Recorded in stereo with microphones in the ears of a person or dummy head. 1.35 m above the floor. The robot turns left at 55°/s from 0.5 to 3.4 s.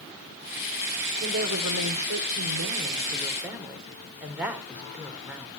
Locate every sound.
1.2 s a woman speaking: 50° right, 4 m; by 5.6 s 170° right, 4 m